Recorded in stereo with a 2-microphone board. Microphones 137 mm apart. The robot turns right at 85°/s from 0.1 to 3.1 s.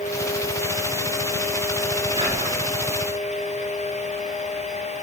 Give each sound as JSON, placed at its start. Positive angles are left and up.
{"t": 2.2, "sound": "whispering", "azimuth_deg": -145, "distance_m": 3.0}